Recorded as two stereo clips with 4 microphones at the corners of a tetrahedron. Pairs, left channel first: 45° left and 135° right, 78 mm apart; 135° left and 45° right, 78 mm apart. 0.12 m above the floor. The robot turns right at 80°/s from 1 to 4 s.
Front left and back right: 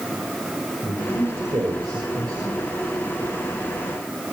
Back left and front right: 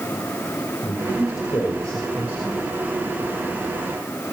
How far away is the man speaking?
About 5.5 m.